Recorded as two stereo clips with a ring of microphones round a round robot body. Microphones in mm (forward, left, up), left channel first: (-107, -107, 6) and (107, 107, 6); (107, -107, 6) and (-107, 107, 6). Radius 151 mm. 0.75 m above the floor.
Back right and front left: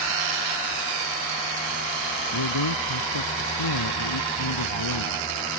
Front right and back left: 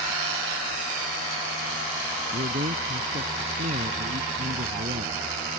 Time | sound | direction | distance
2.3 | a man speaking | 155° right | ?